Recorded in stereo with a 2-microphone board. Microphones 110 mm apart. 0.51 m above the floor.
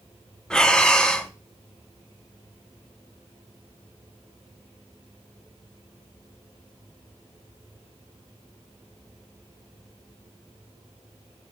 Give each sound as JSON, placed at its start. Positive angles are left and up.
{"t": 0.5, "sound": "breathing", "side_deg": 5, "distance_m": 0.8}